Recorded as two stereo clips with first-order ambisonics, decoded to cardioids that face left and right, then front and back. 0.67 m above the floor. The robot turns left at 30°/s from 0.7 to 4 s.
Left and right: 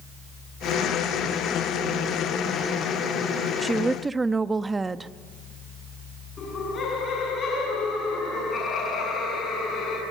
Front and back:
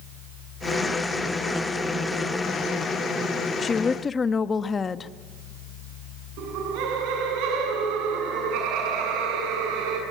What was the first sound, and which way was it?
A woman speaking, 15° right.